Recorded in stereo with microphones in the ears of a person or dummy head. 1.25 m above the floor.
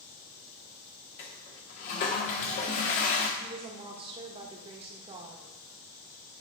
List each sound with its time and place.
1.2 s a toilet flushing: 40° left (ahead or behind), 0.9 m
3.4 s a woman speaking: 30° right (ahead or behind), 1.3 m